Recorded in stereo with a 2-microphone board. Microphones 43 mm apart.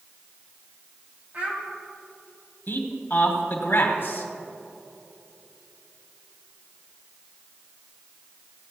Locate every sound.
1.3 s a child speaking: 40° right (ahead or behind), 3 m
2.7 s a man speaking: 50° left (ahead or behind), 1.4 m